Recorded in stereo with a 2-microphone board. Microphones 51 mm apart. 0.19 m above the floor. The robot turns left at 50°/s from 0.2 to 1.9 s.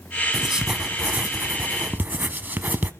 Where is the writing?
10° right, 0.6 m; by 2.9 s 90° right, 0.6 m.